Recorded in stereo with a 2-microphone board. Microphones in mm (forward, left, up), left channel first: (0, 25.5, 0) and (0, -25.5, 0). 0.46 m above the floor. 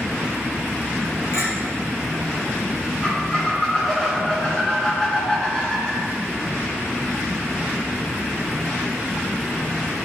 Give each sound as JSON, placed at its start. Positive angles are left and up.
{"t": 1.3, "sound": "a clink", "side_deg": 75, "distance_m": 3.0}
{"t": 3.0, "sound": "a squeak", "side_deg": 15, "distance_m": 2.5}